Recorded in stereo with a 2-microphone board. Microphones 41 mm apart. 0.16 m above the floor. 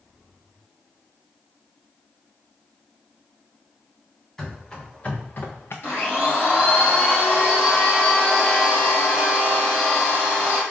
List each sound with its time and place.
4.4 s running footsteps: 15° left (ahead or behind), 1.6 m; by 5.7 s 75° left (ahead or behind), 0.8 m
5.8 s a blender: 65° left (ahead or behind), 2.5 m